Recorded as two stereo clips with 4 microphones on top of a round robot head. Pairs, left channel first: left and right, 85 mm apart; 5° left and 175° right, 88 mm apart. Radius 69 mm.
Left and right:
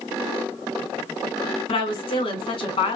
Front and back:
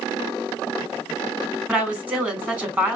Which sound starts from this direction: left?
A woman speaking, at 1.7 s.